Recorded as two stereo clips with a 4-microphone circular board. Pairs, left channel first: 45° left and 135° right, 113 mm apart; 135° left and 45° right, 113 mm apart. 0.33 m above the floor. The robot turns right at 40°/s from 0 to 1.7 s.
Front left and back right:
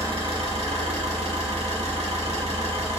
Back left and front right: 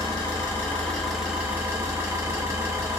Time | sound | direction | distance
0.0 | an engine running | straight behind | 1.0 m